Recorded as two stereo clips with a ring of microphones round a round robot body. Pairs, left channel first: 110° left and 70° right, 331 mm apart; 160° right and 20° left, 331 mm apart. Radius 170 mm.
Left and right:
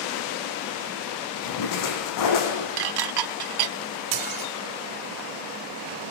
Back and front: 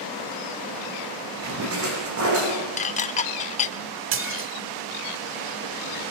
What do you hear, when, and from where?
1.4 s a splash: 75° left, 7.5 m
2.8 s dishes clattering: 85° right, 1.0 m
4.1 s dishes clattering: 35° right, 1.3 m